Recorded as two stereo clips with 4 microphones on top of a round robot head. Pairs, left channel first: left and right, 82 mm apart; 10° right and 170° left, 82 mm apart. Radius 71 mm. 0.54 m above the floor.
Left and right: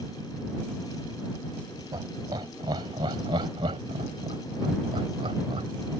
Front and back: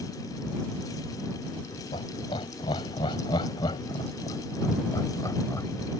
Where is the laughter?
40° right; by 5.7 s 75° right.